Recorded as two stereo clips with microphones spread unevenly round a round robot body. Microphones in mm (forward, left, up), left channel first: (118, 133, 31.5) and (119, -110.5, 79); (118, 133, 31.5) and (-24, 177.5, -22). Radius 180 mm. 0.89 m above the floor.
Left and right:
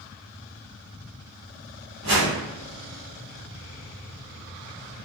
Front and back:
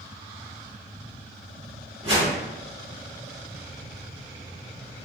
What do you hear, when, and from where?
2.0 s a whoosh: 135° right, 1.5 m